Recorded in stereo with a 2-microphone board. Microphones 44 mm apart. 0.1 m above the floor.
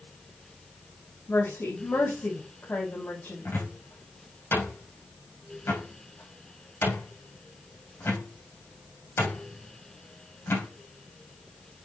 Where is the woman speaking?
65° left (ahead or behind), 4 m.